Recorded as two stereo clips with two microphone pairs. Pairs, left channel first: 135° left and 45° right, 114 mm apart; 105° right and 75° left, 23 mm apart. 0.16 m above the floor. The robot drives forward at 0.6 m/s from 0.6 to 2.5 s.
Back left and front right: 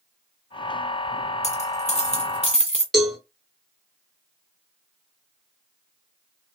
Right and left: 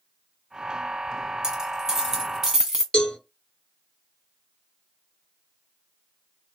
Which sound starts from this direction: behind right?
A cowbell, at 2.9 s.